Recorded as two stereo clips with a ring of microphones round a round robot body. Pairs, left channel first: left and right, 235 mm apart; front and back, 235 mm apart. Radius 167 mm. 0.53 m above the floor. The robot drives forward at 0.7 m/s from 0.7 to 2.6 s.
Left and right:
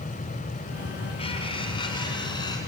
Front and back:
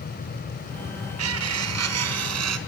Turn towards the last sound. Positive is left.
turn(degrees=170)